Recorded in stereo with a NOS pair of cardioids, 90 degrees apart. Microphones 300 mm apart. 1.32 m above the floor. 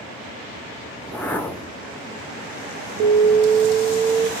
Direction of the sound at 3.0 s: 70° right.